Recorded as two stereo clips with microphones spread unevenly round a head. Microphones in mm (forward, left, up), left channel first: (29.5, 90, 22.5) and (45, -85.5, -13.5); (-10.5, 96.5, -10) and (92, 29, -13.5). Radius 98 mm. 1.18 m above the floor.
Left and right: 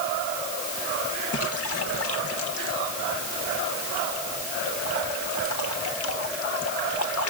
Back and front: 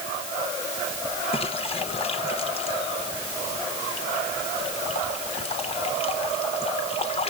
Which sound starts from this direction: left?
A splash, at 1.3 s.